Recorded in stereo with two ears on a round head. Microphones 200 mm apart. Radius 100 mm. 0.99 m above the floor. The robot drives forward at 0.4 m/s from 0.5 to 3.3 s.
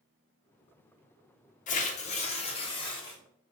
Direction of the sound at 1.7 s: 35° left (ahead or behind).